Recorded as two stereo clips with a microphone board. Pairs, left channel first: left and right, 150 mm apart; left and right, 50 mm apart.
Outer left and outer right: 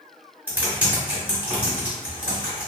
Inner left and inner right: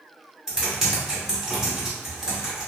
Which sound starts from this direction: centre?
Typing on a keyboard, at 0.5 s.